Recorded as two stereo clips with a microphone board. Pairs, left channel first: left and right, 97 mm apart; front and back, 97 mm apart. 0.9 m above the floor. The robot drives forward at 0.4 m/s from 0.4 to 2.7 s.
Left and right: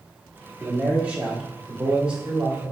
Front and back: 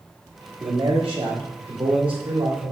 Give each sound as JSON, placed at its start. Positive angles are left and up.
{"t": 0.6, "sound": "a man speaking", "azimuth_deg": -165, "distance_m": 1.7}